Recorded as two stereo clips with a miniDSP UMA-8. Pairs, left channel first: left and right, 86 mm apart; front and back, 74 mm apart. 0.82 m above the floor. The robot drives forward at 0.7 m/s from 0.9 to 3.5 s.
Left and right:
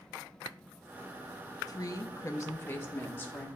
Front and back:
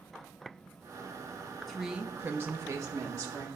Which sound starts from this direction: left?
A woman speaking, at 1.7 s.